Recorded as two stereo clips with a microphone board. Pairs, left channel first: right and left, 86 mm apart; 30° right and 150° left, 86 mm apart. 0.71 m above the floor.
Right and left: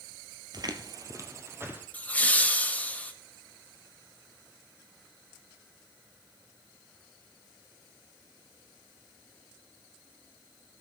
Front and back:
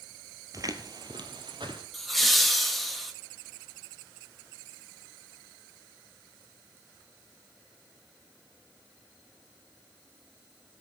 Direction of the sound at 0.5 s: 110° left.